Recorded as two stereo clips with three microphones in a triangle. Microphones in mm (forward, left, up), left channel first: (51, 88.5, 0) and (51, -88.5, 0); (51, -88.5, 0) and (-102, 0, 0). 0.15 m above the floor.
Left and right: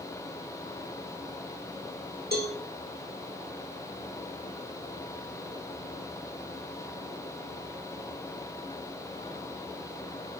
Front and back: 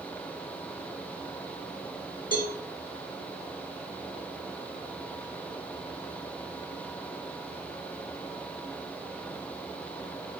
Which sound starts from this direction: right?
A cowbell, at 2.3 s.